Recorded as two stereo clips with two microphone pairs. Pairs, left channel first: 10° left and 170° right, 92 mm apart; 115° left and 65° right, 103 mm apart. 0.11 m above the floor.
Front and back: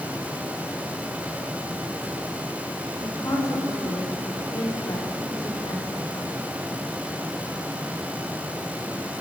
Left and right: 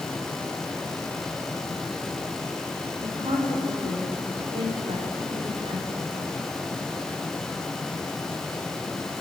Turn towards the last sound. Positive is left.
turn(degrees=-40)